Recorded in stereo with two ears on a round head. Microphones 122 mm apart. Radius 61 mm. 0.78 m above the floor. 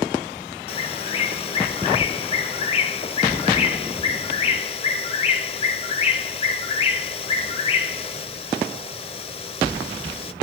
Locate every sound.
0.7 s a bird: 40° left (ahead or behind), 0.7 m